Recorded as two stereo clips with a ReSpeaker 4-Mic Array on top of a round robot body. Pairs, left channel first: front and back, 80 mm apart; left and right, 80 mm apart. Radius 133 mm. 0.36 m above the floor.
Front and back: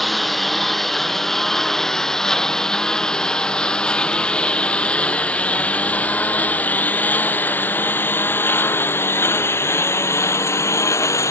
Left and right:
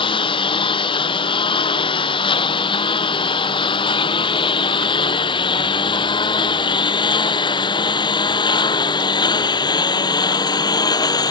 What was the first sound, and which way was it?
A lawn mower, 90° left.